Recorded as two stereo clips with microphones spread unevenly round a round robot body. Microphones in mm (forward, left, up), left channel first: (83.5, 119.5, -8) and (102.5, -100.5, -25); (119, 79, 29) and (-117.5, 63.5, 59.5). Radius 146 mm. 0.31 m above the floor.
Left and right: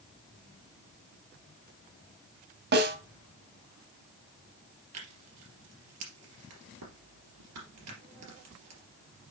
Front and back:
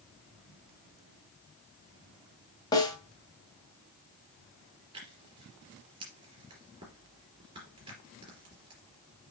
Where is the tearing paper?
105° right, 3 m.